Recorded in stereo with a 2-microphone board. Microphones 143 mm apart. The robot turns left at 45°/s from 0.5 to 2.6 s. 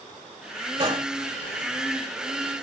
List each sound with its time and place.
0.8 s a gunshot: 45° right (ahead or behind), 1.0 m; by 1.1 s 40° right (ahead or behind), 1.0 m